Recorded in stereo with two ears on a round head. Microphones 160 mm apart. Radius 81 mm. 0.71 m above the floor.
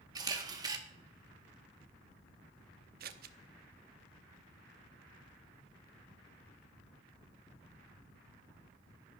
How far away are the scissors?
About 0.8 m.